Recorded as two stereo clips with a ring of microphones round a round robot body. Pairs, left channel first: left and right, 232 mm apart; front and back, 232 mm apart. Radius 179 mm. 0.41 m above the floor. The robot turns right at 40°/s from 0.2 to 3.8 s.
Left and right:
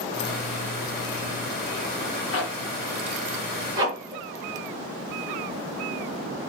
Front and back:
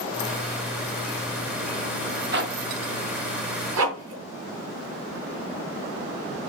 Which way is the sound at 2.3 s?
135° left.